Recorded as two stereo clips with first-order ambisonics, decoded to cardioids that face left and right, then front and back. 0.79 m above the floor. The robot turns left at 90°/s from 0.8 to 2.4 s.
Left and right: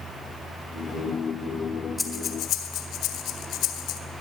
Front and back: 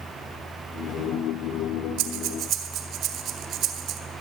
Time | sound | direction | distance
2.0 | breathing | 170° left | 1.8 m